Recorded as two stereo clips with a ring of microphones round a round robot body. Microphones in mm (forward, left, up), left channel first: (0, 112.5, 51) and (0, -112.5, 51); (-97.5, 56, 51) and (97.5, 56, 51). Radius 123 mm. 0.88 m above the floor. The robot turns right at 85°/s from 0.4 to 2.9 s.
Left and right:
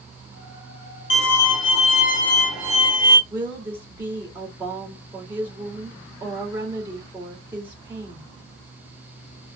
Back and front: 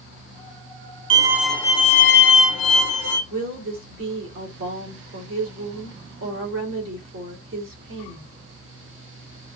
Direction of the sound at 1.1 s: 60° left.